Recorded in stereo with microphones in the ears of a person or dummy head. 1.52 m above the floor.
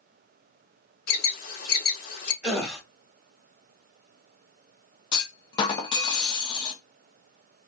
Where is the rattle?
No rattle in this recording.